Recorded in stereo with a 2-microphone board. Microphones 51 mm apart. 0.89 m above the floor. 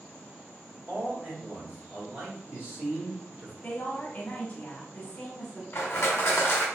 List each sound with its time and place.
0.9 s a man speaking: 45° right (ahead or behind), 1.5 m
3.6 s a woman speaking: 35° left (ahead or behind), 1.3 m
5.7 s crushing: 55° left (ahead or behind), 1.2 m